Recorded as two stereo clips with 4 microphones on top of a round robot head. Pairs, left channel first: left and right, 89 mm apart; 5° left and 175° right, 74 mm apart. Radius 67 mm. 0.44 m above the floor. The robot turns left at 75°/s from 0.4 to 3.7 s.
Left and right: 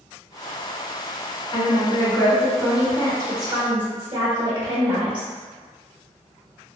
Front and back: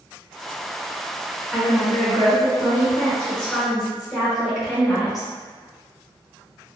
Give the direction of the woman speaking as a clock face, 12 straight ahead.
9 o'clock.